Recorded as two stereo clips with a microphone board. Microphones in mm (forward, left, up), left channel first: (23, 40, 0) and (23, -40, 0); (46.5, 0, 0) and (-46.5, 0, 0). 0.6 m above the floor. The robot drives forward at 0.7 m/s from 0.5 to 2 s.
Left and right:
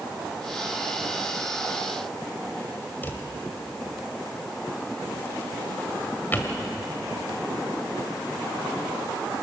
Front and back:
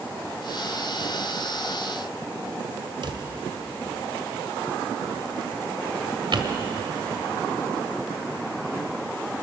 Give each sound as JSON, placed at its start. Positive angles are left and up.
{"t": 3.0, "sound": "a drawer", "azimuth_deg": 155, "distance_m": 1.7}